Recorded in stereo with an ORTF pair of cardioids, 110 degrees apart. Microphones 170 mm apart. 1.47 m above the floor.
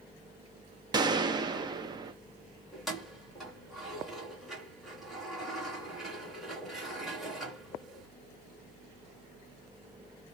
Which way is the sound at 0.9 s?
25° right.